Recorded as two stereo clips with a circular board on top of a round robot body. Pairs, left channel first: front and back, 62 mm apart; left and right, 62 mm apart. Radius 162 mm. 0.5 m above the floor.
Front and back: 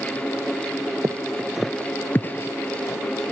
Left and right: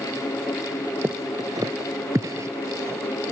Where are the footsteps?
145° right; by 3.0 s 45° right.